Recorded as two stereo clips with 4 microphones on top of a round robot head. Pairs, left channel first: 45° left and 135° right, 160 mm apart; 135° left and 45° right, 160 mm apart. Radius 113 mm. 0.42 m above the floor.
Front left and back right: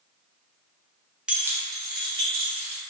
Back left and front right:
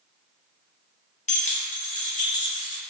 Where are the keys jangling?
140° left, 0.6 m; by 2.8 s 175° left, 1.2 m.